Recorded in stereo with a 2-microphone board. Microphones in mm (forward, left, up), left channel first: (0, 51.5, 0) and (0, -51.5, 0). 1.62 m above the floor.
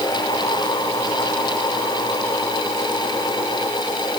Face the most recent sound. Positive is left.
No sound to turn to.